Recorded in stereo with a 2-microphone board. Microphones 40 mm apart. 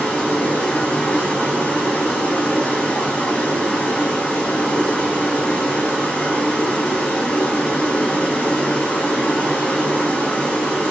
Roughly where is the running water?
Left.